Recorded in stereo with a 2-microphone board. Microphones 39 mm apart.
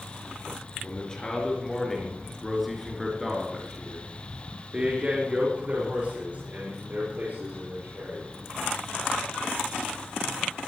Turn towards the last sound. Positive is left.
turn(degrees=-55)  # may be behind; listen again after turning